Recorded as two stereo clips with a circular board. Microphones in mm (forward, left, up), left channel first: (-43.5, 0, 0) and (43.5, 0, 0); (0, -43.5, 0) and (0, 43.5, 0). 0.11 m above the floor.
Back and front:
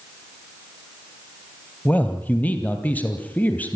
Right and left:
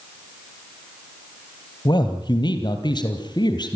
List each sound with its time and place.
1.9 s a man speaking: 110° right, 2.5 m